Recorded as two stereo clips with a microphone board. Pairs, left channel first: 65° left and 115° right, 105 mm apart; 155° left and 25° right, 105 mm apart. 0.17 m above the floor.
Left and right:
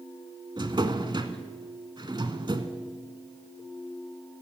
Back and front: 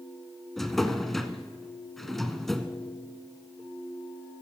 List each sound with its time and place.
0.6 s a drawer: 115° right, 0.8 m